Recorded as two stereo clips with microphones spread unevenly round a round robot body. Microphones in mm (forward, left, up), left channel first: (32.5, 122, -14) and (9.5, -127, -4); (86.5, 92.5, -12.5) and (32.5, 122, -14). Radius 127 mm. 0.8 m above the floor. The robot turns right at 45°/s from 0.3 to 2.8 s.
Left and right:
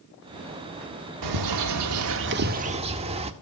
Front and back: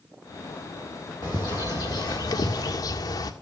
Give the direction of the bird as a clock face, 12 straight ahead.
3 o'clock.